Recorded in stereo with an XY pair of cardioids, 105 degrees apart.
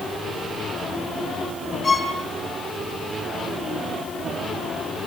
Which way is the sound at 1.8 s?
25° left.